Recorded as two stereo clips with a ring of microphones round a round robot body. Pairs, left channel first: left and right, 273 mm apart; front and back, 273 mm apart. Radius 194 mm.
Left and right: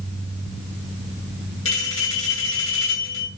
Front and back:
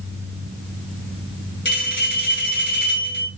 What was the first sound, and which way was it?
A bell, 50° left.